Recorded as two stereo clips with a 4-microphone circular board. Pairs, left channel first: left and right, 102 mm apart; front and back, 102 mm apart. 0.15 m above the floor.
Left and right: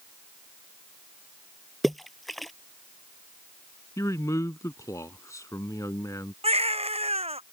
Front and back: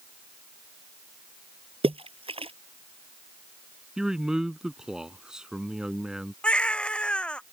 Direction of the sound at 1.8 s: Straight behind.